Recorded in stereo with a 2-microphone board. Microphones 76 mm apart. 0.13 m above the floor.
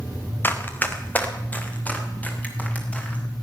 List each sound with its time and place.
0.4 s running footsteps: 25° left (ahead or behind), 1.8 m; by 3.2 s 20° left (ahead or behind), 5 m